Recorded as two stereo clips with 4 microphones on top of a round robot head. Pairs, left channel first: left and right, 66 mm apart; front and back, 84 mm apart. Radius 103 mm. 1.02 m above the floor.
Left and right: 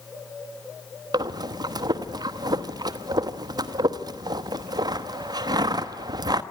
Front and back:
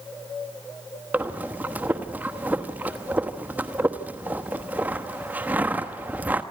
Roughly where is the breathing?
Right.